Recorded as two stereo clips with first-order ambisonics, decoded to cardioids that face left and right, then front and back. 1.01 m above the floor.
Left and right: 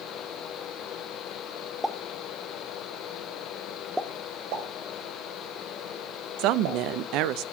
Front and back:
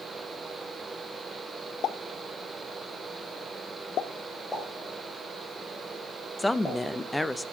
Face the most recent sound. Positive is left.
turn(degrees=-80)